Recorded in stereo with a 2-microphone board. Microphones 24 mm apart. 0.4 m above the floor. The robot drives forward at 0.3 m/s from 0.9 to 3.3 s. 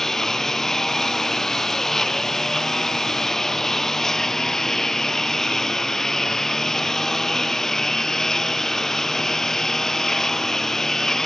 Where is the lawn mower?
15° left (ahead or behind).